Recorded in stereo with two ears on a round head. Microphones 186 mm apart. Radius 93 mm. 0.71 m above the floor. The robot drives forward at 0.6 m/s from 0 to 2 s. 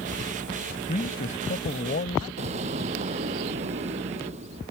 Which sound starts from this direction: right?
An explosion, at 2.4 s.